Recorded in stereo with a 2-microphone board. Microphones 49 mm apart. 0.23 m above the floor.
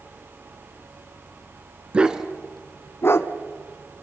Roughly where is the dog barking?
Right.